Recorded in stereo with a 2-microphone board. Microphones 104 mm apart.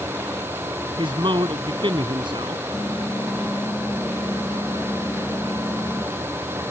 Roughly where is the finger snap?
No finger snap in this recording.